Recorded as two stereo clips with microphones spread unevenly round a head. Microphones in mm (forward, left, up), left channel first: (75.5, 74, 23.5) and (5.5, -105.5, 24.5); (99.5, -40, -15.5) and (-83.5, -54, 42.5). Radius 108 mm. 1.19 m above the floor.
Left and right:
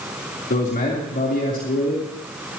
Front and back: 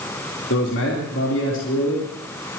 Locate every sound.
0.5 s a man speaking: 25° left, 3.5 m